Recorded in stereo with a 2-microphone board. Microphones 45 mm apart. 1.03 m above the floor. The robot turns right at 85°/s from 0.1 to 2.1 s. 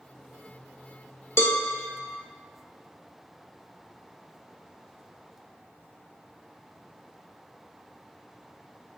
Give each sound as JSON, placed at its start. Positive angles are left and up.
{"t": 1.4, "sound": "a cowbell", "side_deg": 70, "distance_m": 1.2}